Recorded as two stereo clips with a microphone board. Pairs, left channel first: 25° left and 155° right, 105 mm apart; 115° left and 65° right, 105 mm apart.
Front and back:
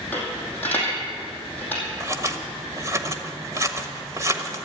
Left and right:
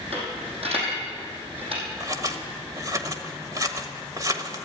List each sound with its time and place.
0.1 s a dropped coin: 50° right, 5 m
2.0 s scissors: 110° right, 1.3 m